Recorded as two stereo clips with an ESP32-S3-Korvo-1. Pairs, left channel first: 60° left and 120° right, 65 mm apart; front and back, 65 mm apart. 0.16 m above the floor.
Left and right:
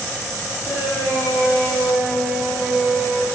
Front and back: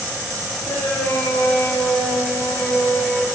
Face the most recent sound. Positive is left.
turn(degrees=40)